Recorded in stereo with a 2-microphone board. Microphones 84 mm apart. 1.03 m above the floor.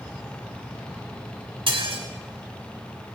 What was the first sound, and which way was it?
Dishes clattering, 85° right.